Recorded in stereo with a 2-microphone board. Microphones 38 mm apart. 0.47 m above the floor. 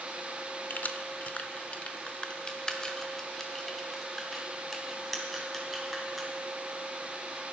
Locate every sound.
0.7 s keys jangling: 50° left (ahead or behind), 0.9 m; by 6.3 s centre (ahead or behind), 3 m